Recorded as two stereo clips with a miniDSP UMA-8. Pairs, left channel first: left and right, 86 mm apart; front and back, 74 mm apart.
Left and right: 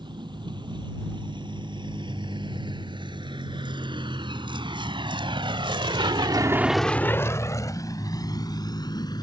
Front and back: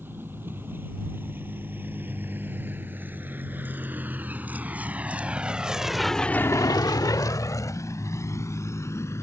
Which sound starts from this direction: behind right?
A vehicle, at 0.0 s.